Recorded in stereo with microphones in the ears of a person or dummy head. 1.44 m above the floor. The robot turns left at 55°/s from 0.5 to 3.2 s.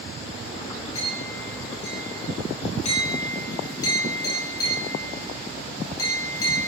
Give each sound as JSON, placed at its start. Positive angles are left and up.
{"t": 0.9, "sound": "a clink", "side_deg": 30, "distance_m": 6.5}